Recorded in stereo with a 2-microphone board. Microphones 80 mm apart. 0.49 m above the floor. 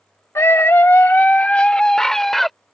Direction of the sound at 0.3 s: 35° left (ahead or behind).